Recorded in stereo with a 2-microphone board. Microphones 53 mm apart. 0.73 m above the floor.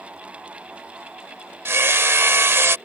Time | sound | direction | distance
1.6 | hammering | 50° right (ahead or behind) | ?